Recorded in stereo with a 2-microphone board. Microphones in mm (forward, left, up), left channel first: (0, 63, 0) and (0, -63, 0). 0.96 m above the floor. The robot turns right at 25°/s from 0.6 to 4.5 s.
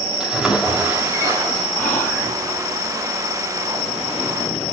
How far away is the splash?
About 3 m.